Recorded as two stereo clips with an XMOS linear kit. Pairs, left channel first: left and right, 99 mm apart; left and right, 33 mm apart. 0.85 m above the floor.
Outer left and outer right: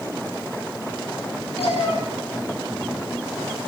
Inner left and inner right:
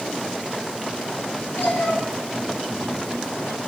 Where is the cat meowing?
85° left, 9.5 m.